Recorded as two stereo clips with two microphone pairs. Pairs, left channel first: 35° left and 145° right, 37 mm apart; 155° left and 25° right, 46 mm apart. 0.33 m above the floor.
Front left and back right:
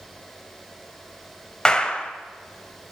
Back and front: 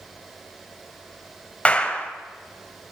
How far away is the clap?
About 1.2 m.